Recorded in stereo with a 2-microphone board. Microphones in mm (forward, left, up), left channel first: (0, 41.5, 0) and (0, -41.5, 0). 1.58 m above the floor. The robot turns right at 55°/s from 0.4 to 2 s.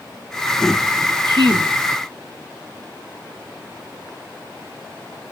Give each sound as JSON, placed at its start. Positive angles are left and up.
{"t": 1.2, "sound": "a woman speaking", "side_deg": -60, "distance_m": 1.8}